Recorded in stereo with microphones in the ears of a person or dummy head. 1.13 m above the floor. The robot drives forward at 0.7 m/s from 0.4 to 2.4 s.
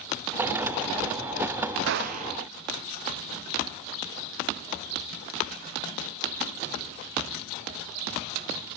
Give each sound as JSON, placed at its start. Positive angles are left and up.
{"t": 1.9, "sound": "a gunshot", "side_deg": -65, "distance_m": 0.5}